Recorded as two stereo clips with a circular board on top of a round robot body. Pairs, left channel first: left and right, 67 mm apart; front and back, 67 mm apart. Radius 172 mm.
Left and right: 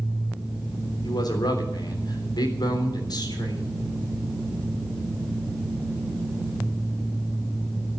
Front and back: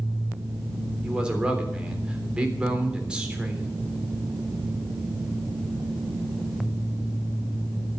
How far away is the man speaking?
About 3.5 m.